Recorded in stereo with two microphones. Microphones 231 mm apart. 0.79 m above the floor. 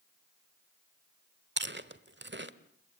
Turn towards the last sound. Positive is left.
turn(degrees=-50)  # may be behind; listen again after turning